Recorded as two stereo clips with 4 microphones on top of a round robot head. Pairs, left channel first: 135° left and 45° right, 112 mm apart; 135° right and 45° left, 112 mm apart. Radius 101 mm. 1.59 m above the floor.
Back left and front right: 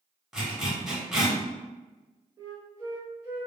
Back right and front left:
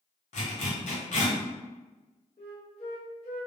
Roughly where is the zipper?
Behind right.